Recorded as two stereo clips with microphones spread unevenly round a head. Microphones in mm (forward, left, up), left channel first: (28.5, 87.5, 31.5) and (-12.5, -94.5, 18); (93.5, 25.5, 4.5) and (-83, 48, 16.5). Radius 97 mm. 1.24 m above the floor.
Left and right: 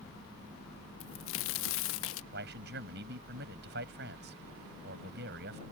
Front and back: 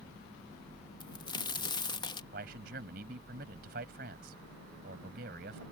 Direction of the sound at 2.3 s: 140° right.